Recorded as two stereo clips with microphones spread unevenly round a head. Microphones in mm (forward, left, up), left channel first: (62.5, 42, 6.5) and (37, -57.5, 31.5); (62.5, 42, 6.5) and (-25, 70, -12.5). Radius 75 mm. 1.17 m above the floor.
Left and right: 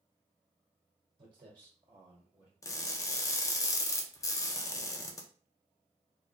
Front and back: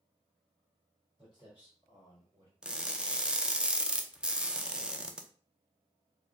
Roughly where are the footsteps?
Right.